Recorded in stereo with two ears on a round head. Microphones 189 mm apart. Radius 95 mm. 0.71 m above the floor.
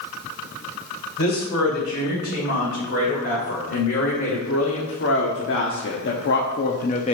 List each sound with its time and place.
1.2 s a woman speaking: 60° left (ahead or behind), 3 m; by 7.1 s 30° left (ahead or behind), 0.6 m